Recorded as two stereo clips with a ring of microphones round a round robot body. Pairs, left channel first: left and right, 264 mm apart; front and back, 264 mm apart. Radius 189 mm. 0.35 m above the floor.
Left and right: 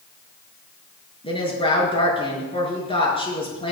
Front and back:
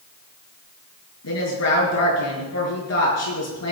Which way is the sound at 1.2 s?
20° left.